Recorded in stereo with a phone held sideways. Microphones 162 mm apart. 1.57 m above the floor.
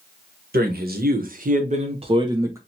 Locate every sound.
0.5 s a man speaking: 75° right (ahead or behind), 1.1 m; by 2.6 s 20° right (ahead or behind), 0.8 m